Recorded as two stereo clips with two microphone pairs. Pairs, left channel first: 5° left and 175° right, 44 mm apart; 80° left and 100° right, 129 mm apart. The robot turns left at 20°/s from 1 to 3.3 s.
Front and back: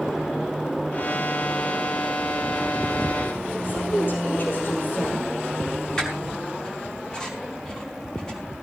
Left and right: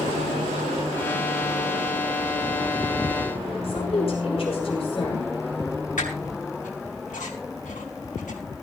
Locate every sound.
3.6 s a woman speaking: 40° left, 5 m
6.0 s a squeak: 80° left, 5 m